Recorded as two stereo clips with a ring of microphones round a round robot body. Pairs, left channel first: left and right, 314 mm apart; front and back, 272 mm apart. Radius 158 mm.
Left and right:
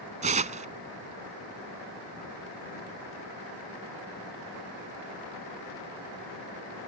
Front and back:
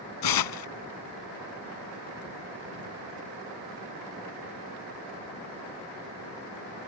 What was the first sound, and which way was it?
Tearing paper, 20° right.